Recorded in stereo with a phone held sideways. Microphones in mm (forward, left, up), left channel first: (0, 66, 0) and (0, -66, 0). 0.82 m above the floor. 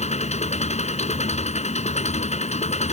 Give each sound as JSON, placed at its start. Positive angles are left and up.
{"t": 0.0, "sound": "an engine running", "side_deg": 60}